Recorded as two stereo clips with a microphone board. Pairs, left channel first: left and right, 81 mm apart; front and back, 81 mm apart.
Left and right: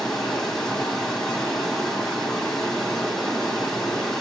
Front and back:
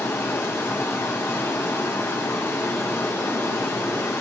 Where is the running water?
15° left, 1.6 m.